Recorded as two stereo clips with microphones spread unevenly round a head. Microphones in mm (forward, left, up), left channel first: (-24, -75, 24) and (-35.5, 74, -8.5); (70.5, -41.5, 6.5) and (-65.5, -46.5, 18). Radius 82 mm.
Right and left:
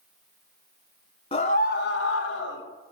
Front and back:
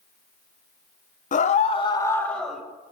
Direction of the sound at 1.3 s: 25° right.